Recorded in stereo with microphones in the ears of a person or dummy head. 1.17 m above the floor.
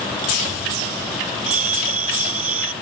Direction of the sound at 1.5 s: 40° right (ahead or behind).